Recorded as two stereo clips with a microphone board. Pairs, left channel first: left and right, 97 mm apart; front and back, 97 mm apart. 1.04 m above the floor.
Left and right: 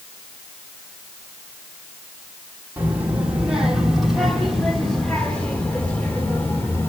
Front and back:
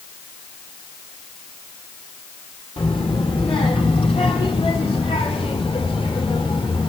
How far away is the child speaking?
About 2.5 m.